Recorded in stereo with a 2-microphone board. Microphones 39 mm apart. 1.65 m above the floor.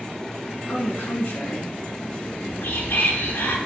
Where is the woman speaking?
70° left (ahead or behind), 2 m.